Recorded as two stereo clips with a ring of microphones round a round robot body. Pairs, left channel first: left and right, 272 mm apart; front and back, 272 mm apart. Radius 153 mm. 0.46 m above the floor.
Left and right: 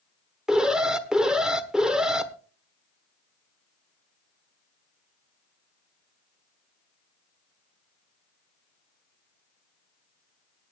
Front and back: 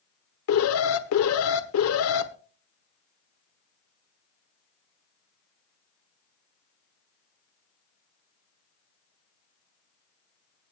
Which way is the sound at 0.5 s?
5° right.